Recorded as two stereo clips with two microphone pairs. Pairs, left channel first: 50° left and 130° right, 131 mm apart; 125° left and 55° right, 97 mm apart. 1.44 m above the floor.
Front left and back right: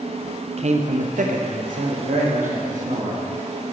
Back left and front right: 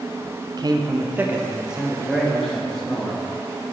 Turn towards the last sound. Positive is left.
turn(degrees=-150)